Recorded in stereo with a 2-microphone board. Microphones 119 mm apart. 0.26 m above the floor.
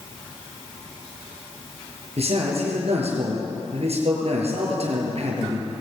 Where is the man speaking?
60° right (ahead or behind), 6.5 m.